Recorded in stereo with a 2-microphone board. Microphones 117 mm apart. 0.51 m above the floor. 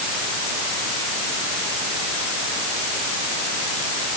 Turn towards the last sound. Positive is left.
No sound to turn to.